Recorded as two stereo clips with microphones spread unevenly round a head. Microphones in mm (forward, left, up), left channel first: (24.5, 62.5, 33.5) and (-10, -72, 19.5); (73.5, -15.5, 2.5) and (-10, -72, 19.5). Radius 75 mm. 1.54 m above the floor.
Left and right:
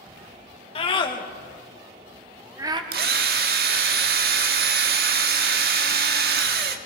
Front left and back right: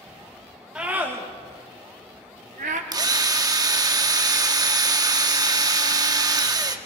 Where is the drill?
115° right, 1.4 m.